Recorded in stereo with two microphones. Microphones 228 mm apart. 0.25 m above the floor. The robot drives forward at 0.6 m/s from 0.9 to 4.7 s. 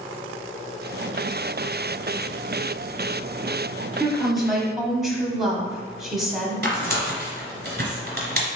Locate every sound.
4.0 s a woman speaking: centre (ahead or behind), 1.0 m
6.6 s tearing paper: 45° right (ahead or behind), 1.6 m